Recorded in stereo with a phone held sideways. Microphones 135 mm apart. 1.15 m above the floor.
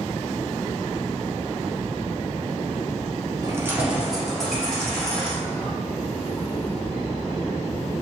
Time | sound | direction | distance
3.4 | keys jangling | 25° right (ahead or behind) | 0.5 m